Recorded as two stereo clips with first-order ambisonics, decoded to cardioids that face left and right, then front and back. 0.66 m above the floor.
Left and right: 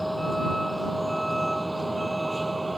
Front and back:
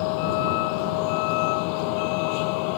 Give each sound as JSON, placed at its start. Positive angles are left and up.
{"t": 0.0, "sound": "a vehicle", "azimuth_deg": 0}